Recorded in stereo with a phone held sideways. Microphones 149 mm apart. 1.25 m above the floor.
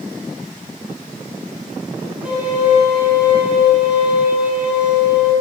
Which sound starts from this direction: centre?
A violin, at 2.2 s.